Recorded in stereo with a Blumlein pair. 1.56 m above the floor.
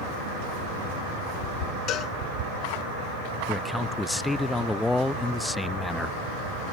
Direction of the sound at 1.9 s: 35° left.